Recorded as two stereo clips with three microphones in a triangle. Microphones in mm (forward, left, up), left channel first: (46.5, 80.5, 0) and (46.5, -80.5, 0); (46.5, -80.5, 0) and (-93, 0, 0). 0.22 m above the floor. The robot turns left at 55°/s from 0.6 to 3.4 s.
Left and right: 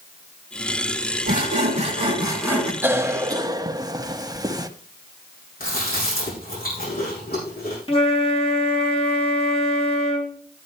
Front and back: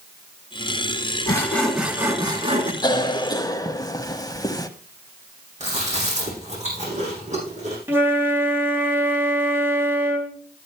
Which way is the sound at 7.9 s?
85° left.